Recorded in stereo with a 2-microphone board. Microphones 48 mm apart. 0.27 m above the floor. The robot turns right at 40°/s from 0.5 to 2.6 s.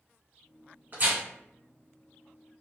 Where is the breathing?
I don't hear breathing.